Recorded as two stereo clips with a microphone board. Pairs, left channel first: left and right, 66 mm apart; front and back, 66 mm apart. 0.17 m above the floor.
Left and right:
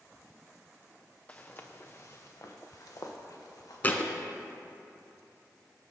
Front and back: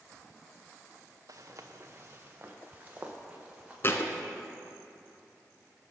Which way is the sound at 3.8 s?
35° left.